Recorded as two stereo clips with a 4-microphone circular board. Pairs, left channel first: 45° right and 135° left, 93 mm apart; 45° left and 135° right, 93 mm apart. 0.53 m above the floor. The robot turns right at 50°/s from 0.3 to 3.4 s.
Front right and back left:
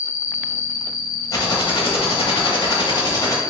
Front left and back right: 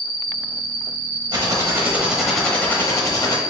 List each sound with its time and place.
0.0 s an insect: 60° left, 0.7 m; by 3.5 s 145° right, 0.7 m
1.3 s typing on a keyboard: 95° right, 0.9 m; by 3.4 s 10° left, 0.9 m